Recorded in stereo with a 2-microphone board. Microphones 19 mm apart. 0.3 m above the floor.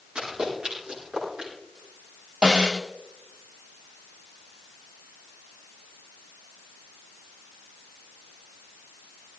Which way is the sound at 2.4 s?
60° right (ahead or behind).